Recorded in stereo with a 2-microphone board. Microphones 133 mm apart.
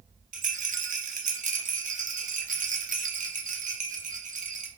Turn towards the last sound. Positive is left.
turn(degrees=-70)  # may be behind; listen again after turning